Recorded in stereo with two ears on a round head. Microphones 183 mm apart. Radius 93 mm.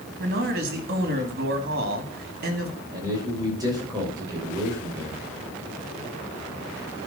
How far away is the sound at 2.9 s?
About 6 m.